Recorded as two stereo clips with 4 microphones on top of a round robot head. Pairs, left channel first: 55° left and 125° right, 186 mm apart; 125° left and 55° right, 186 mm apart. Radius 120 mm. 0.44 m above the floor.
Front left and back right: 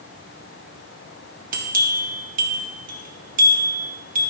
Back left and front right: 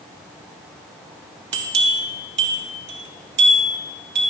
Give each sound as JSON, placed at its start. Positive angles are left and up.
{"t": 1.5, "sound": "a bell", "azimuth_deg": -80, "distance_m": 2.0}